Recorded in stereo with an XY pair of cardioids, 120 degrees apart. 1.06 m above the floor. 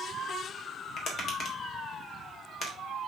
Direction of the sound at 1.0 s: 45° left.